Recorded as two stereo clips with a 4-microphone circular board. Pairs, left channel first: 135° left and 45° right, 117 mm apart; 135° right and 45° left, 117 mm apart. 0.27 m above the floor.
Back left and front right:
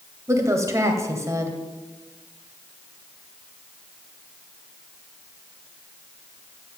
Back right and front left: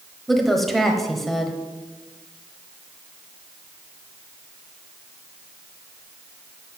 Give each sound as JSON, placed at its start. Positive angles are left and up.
{"t": 0.3, "sound": "a woman speaking", "azimuth_deg": -45, "distance_m": 1.1}